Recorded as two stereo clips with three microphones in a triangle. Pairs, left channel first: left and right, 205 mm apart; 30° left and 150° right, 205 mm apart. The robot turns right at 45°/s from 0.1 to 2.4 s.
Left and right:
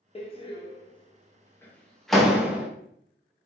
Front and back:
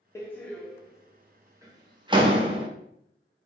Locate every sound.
0.1 s a door slam: 90° left, 0.6 m; by 2.7 s 170° right, 0.6 m